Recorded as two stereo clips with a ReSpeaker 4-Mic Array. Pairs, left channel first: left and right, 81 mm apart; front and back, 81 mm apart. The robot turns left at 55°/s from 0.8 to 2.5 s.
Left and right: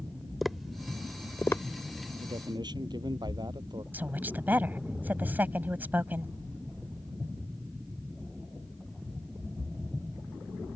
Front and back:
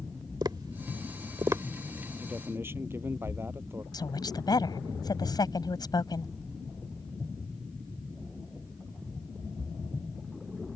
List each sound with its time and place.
0.4 s tapping: straight behind; by 1.6 s 135° left
2.2 s a man speaking: 105° right; by 3.8 s 120° right
3.9 s a woman speaking: 25° right